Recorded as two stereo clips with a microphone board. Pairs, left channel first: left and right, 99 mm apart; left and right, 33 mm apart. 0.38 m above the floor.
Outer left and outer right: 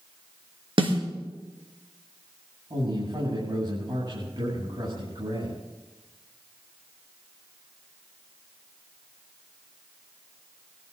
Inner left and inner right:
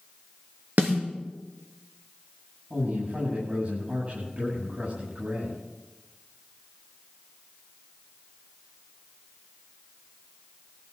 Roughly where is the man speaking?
Right.